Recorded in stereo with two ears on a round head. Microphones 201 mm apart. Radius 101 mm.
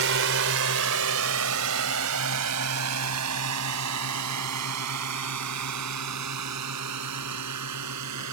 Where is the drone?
60° right (ahead or behind); by 8.3 s 80° right.